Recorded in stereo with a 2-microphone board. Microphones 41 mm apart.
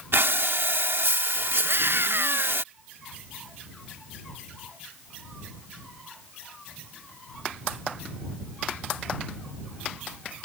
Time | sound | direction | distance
0.1 | breathing | 80° right | ?
1.6 | a scream | 70° right (ahead or behind) | ?